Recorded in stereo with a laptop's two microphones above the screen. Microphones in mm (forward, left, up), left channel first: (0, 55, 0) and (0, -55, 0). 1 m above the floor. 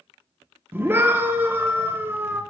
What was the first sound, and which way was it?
A scream, 20° right (ahead or behind).